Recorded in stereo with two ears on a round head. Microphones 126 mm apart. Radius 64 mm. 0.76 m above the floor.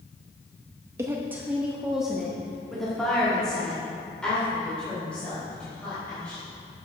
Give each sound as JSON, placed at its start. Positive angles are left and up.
{"t": 1.0, "sound": "a woman speaking", "side_deg": -20, "distance_m": 0.7}